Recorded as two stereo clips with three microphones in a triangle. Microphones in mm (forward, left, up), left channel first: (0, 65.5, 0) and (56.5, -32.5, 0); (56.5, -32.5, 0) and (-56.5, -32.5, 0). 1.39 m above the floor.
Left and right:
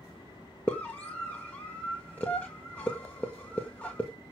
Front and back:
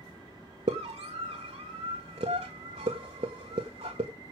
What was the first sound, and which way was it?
A scream, 165° right.